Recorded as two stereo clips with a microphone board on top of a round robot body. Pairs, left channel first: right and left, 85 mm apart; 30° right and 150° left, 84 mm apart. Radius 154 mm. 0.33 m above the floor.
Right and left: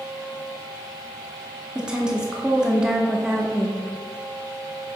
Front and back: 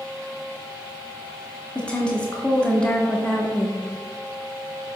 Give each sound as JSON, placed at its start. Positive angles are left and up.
{"t": 1.8, "sound": "a woman speaking", "azimuth_deg": 25, "distance_m": 1.0}